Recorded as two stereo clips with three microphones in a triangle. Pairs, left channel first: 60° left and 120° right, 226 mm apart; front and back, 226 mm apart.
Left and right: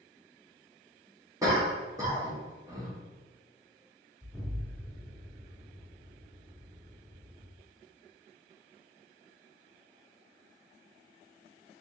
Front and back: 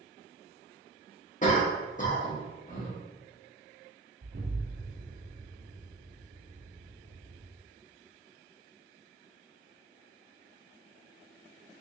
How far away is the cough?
About 1.2 m.